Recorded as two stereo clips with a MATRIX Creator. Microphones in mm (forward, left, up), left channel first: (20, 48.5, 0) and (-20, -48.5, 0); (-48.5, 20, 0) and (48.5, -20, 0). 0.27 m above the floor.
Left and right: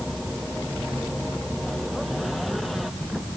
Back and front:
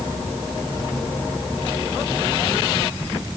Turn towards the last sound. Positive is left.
No sound to turn to.